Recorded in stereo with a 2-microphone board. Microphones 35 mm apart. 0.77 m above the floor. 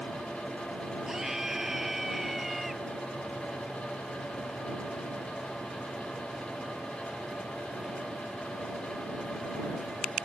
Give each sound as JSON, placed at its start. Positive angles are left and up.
{"t": 1.1, "sound": "a scream", "side_deg": -15}